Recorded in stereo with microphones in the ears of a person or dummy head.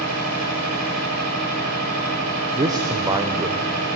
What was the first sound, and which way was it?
A machine running, 75° right (ahead or behind).